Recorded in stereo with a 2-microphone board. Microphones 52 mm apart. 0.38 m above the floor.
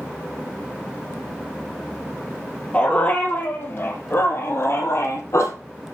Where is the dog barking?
25° left (ahead or behind), 2.5 m; by 5.5 s 65° left (ahead or behind), 3 m.